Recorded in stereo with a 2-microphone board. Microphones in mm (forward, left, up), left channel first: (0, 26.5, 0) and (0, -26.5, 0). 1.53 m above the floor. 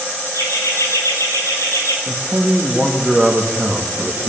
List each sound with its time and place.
0.3 s laughter: 70° left (ahead or behind), 10 m; by 2.0 s 65° left (ahead or behind), 9 m
2.1 s a man speaking: 5° right (ahead or behind), 2 m